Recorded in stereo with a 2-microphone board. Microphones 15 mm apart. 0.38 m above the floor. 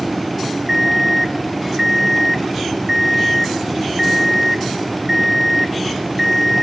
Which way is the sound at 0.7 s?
20° right (ahead or behind).